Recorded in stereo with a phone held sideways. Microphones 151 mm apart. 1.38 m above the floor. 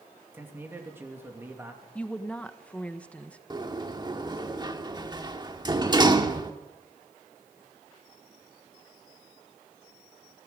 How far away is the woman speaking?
About 1.2 m.